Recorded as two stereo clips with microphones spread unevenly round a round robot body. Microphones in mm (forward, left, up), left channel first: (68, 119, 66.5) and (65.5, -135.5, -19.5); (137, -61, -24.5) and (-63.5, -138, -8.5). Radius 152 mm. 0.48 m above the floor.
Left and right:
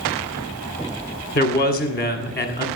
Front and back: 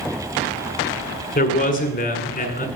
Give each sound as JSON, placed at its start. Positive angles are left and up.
{"t": 1.4, "sound": "a man speaking", "azimuth_deg": 30, "distance_m": 1.6}